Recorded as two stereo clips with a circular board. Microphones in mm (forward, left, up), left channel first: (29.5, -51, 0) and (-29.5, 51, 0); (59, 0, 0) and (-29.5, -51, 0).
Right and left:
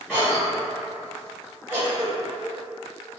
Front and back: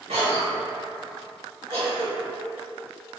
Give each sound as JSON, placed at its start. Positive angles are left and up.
{"t": 0.1, "sound": "a cough", "azimuth_deg": -155, "distance_m": 1.0}